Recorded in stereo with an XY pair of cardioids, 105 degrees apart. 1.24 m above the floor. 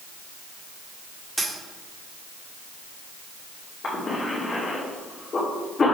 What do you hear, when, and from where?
1.4 s a dropped coin: 20° right, 1.7 m
3.8 s a cough: 35° left, 2.5 m